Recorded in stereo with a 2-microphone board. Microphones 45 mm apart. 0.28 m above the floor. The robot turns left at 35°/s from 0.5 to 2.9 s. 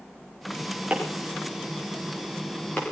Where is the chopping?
30° right (ahead or behind), 6 m; by 2.8 s 40° left (ahead or behind), 6 m.